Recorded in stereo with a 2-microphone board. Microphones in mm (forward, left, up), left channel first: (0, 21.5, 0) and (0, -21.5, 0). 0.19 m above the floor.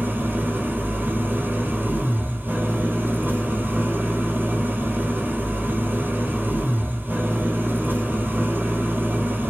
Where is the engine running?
50° right (ahead or behind), 1.0 m.